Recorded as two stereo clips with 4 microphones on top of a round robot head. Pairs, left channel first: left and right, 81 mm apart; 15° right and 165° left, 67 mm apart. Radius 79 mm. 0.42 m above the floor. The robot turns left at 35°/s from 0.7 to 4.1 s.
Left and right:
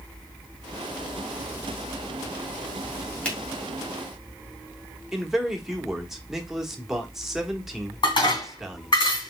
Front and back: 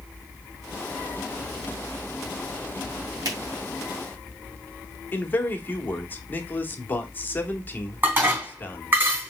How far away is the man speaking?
About 1.2 m.